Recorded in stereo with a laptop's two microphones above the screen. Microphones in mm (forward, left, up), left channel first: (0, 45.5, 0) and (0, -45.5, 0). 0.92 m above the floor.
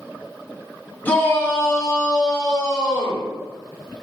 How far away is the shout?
About 1.5 m.